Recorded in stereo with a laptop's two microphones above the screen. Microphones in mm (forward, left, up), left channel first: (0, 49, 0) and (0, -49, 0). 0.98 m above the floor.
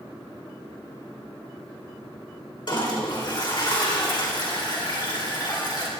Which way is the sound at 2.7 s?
50° left (ahead or behind).